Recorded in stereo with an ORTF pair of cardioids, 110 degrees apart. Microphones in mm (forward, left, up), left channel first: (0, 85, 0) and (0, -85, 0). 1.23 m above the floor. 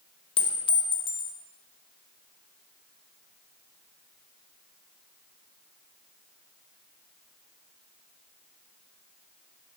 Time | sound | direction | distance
0.4 | a clink | 30° left | 0.8 m